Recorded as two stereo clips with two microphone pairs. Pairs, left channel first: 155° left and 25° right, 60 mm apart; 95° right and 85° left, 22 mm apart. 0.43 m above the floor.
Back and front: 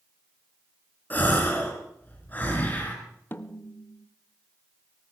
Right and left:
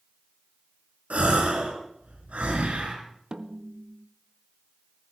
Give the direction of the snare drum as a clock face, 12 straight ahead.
8 o'clock.